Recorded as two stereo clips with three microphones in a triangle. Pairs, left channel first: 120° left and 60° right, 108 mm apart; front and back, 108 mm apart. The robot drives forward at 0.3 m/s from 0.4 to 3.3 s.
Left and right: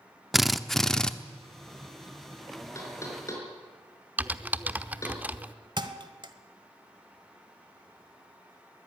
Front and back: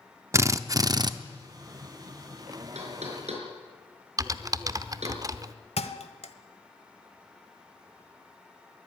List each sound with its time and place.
0.3 s a drill: 150° right, 0.7 m; by 1.1 s 160° right, 0.8 m
2.8 s knocking: 175° right, 4.5 m
4.2 s typing on a keyboard: 135° right, 0.7 m
5.8 s a thud: 15° right, 1.2 m